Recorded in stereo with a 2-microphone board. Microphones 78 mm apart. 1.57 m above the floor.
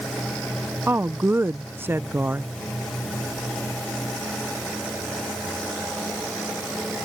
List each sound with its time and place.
0.9 s a woman speaking: 30° right (ahead or behind)